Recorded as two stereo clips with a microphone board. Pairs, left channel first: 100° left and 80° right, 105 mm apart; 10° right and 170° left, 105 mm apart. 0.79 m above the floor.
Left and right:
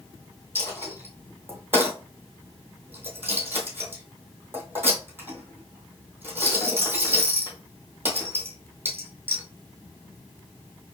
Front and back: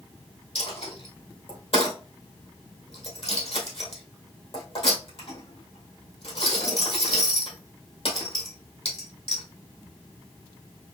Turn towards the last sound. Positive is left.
turn(degrees=-10)